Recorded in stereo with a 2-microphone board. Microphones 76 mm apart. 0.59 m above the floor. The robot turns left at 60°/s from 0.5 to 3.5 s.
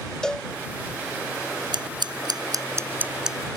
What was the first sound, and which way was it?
A cowbell, 10° left (ahead or behind).